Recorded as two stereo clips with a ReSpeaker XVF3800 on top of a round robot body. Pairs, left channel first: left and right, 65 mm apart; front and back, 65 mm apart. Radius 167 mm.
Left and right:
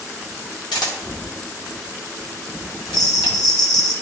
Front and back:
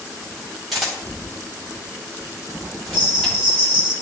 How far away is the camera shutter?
About 1.7 m.